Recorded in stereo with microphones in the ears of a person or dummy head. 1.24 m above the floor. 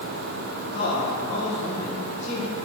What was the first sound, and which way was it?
A man speaking, 80° left.